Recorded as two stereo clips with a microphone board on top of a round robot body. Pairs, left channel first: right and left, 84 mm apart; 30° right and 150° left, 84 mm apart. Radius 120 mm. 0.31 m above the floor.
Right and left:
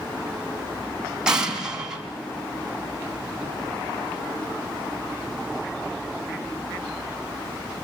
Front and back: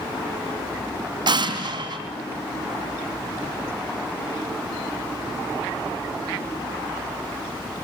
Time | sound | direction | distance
1.3 | an explosion | 170° left | 4 m